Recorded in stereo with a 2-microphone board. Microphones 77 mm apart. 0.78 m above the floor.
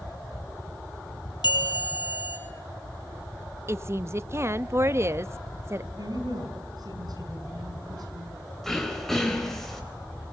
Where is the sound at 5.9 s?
60° right (ahead or behind), 6 m.